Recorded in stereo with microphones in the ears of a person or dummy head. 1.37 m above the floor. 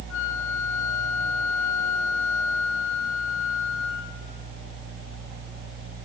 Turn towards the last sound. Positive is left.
turn(degrees=70)  # may be behind; listen again after turning